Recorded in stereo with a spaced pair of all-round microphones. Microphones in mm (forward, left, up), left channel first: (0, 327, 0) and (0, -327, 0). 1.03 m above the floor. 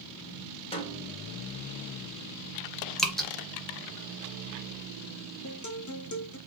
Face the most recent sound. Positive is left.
turn(degrees=30)  # may be behind; listen again after turning